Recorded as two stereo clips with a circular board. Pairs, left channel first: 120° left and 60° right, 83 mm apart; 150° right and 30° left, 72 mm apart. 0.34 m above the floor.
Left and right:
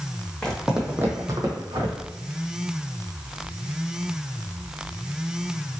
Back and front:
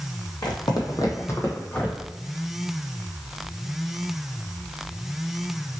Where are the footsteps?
160° right, 0.8 m; by 2.1 s 70° right, 1.2 m.